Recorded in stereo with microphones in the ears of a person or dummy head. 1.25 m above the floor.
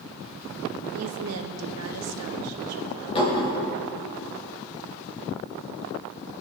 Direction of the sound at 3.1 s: 30° left (ahead or behind).